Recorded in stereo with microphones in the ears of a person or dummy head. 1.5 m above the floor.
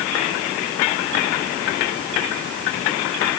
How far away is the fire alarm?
No fire alarm in this recording.